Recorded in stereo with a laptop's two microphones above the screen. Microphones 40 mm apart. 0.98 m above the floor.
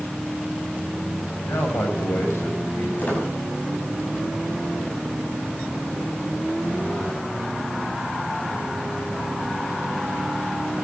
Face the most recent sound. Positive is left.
turn(degrees=45)  # may be behind; listen again after turning